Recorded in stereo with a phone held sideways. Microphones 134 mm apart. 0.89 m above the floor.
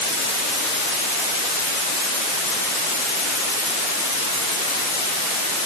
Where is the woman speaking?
No woman speaking in this recording.